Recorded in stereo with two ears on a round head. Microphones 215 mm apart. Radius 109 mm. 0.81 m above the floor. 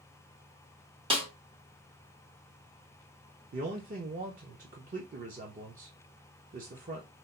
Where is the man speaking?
35° right (ahead or behind), 0.7 m.